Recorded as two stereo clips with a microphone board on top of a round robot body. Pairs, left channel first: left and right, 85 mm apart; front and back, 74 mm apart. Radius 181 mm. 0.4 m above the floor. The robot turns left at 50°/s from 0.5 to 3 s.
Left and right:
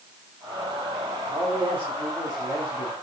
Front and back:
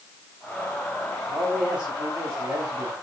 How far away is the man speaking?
About 3.5 m.